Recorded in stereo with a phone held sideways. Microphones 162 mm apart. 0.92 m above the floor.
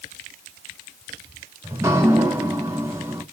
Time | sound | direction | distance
1.6 | dripping | 15° right (ahead or behind) | 2 m